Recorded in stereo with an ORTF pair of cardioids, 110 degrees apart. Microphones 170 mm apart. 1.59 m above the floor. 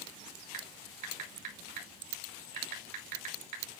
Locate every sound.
0.5 s typing on a keyboard: 55° right, 3.5 m